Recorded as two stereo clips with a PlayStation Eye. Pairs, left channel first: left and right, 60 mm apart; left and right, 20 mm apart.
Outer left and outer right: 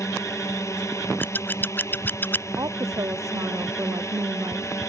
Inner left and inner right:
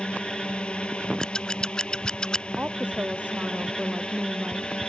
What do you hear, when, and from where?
0.0 s a drone: 55° left (ahead or behind)
1.2 s scissors: 35° left (ahead or behind)
2.6 s a woman speaking: 75° right (ahead or behind)